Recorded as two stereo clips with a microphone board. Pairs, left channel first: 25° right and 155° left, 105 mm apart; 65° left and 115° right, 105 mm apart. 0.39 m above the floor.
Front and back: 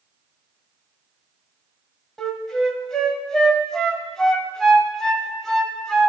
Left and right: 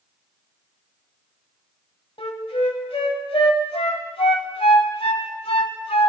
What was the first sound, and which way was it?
A flute, 65° left.